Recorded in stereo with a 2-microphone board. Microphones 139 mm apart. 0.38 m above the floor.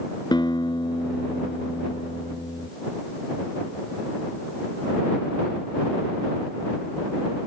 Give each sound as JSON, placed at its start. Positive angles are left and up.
{"t": 0.3, "sound": "a guitar", "side_deg": 30}